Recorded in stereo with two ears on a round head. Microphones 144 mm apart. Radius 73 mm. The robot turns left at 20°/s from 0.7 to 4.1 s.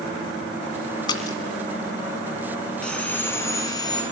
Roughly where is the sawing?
Centre.